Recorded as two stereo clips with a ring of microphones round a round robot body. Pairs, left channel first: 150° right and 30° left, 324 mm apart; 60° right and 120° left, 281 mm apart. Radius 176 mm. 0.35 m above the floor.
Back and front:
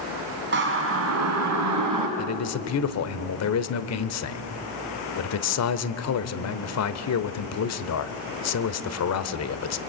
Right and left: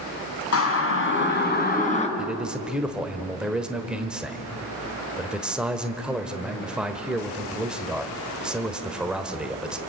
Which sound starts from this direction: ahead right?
A siren, at 0.5 s.